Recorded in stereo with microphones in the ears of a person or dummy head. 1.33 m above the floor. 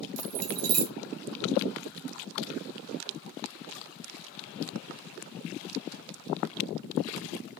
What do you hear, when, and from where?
0.2 s keys jangling: 70° right (ahead or behind), 0.8 m